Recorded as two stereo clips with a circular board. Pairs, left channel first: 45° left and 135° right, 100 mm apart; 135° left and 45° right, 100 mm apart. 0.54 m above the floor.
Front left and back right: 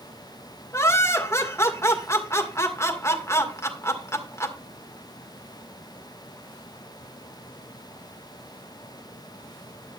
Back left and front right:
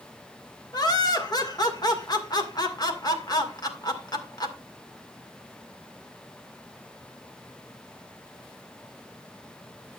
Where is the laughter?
100° left, 2.0 m.